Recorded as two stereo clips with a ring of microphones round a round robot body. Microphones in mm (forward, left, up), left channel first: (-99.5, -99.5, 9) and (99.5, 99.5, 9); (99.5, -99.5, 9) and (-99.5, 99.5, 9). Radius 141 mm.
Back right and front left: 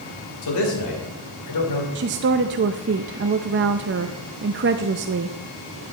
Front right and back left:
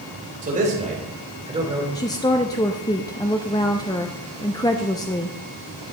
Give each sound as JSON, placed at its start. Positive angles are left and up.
{"t": 0.4, "sound": "a man speaking", "azimuth_deg": -160, "distance_m": 3.0}
{"t": 1.9, "sound": "a woman speaking", "azimuth_deg": 25, "distance_m": 0.5}